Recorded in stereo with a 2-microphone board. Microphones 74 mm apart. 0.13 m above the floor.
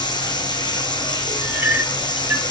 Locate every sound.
0.0 s running water: 80° left, 5.5 m
1.4 s a clink: 25° right (ahead or behind), 2.5 m